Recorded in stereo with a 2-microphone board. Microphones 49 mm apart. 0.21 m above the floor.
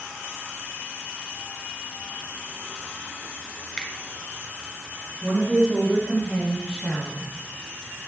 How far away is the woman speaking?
About 5.5 m.